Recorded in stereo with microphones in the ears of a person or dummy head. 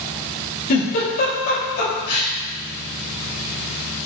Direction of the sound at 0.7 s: 55° left (ahead or behind).